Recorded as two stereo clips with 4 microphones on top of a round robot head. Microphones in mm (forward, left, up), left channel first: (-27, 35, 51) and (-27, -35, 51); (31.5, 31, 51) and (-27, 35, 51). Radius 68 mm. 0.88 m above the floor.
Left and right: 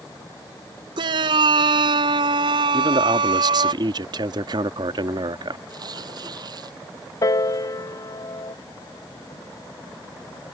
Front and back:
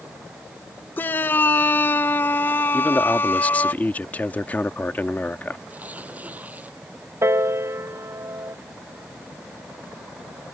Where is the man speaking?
75° right.